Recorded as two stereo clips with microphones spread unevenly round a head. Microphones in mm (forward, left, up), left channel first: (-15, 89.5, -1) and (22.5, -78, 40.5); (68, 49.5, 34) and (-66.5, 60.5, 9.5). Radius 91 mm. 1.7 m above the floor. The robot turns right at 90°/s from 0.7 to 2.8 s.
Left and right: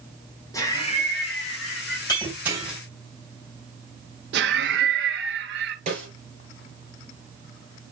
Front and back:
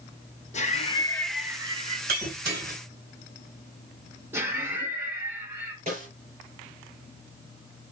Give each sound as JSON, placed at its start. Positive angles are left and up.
{"t": 0.5, "sound": "laughter", "azimuth_deg": 25, "distance_m": 2.5}
{"t": 2.1, "sound": "breaking glass", "azimuth_deg": 175, "distance_m": 3.5}
{"t": 4.3, "sound": "laughter", "azimuth_deg": -110, "distance_m": 1.6}
{"t": 5.9, "sound": "a snare drum", "azimuth_deg": -125, "distance_m": 5.5}